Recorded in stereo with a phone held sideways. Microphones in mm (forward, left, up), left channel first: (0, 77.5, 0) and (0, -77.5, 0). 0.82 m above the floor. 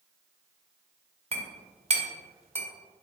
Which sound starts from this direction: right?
A clink, at 1.3 s.